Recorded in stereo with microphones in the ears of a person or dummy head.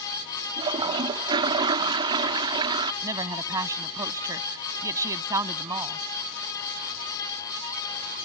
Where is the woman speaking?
15° right (ahead or behind).